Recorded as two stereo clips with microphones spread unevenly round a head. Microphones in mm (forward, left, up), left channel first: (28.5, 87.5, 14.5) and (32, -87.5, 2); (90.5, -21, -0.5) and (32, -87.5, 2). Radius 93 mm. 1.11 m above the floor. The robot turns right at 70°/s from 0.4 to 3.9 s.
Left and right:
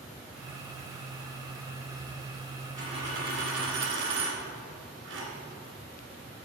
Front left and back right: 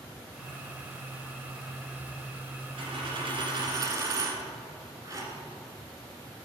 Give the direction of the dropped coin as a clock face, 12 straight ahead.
5 o'clock.